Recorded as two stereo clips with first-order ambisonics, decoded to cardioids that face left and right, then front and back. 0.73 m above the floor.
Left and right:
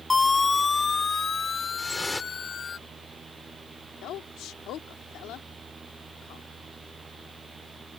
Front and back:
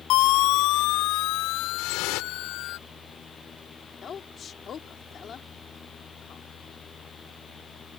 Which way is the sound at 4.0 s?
55° left.